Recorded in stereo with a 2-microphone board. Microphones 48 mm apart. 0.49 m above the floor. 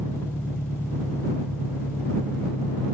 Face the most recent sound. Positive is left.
turn(degrees=85)